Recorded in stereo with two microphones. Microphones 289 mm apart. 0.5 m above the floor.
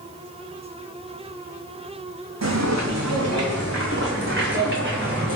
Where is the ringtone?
No ringtone in this recording.